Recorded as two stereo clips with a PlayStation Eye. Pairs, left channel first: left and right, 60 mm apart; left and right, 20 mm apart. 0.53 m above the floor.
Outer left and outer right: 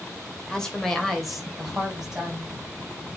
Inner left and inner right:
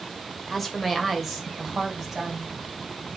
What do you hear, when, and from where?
0.5 s a woman speaking: 15° left (ahead or behind), 1.7 m; by 2.5 s 10° right (ahead or behind), 3.5 m